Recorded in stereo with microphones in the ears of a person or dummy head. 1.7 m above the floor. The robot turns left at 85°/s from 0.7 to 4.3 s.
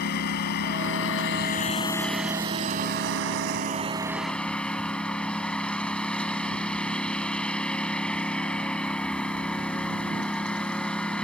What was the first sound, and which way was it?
A lawn mower, 125° left.